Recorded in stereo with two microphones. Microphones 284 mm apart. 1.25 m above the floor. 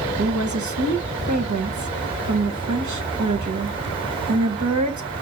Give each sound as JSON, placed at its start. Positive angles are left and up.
{"t": 0.2, "sound": "a woman speaking", "side_deg": -90, "distance_m": 1.0}